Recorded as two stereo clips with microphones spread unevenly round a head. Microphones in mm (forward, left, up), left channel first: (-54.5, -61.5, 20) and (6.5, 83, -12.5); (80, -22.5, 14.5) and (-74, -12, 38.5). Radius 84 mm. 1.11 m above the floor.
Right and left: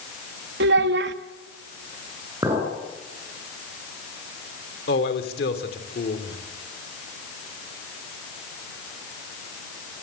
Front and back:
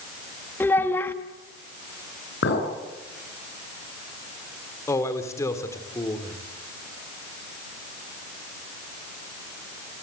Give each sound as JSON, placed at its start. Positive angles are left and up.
{"t": 0.6, "sound": "a child speaking", "azimuth_deg": 75, "distance_m": 1.5}
{"t": 2.4, "sound": "a clink", "azimuth_deg": -10, "distance_m": 9.0}
{"t": 4.9, "sound": "a man speaking", "azimuth_deg": -75, "distance_m": 3.5}